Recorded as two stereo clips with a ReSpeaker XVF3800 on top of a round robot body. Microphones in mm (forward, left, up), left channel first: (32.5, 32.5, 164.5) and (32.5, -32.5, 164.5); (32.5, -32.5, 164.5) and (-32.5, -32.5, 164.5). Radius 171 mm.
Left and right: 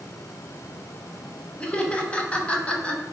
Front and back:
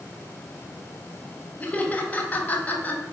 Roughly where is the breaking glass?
No breaking glass in this recording.